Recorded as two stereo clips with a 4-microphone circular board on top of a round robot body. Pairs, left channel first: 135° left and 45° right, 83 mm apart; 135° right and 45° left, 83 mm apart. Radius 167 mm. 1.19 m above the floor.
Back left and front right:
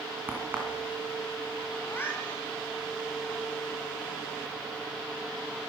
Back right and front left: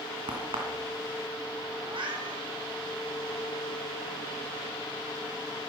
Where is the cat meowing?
70° left, 1.8 m.